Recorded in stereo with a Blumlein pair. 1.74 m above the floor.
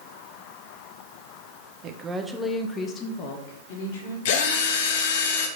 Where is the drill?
50° left, 1.3 m.